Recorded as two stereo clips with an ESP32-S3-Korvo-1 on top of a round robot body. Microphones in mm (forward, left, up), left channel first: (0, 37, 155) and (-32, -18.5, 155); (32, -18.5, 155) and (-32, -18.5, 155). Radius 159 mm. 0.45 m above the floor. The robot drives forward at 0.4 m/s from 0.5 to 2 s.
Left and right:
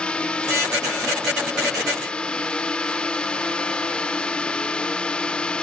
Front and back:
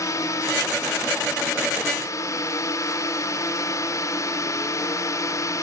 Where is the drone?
10° right.